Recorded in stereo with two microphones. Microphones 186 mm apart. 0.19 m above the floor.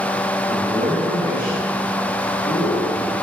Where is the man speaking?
25° right (ahead or behind), 3.5 m.